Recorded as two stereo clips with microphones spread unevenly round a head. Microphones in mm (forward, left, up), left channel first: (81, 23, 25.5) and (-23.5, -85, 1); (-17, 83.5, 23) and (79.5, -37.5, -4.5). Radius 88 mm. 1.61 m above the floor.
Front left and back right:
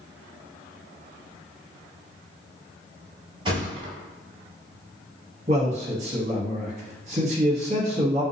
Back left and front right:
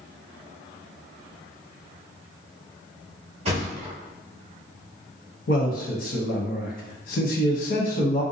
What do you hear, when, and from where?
3.5 s a thud: 90° right, 1.1 m
5.5 s a man speaking: 170° left, 0.8 m